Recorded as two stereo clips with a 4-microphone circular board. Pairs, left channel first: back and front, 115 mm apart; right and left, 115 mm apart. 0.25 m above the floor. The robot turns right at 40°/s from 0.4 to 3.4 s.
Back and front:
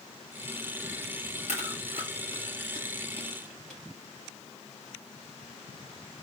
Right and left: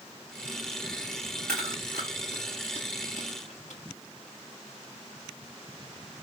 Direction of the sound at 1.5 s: 175° right.